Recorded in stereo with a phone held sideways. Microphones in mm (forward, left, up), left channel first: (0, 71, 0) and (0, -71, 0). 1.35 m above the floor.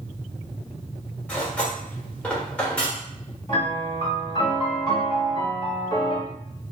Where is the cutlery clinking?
10° left (ahead or behind), 0.8 m.